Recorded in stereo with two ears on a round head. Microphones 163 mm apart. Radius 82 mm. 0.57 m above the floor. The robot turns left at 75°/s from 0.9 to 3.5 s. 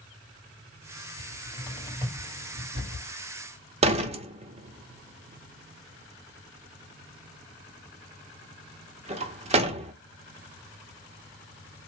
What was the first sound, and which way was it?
A cupboard door, 50° left (ahead or behind).